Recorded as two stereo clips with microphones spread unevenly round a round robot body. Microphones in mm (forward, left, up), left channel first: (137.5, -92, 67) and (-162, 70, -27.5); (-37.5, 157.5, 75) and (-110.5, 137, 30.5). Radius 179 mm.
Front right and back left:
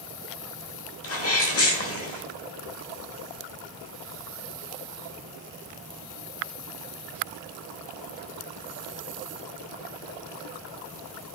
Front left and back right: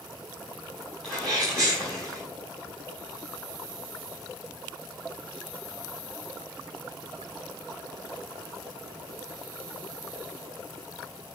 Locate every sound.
1.0 s a sneeze: 85° right, 1.8 m